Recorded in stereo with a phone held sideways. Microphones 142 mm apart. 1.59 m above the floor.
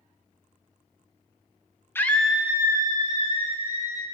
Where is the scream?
15° left (ahead or behind), 0.7 m; by 4.0 s 50° right (ahead or behind), 1.4 m.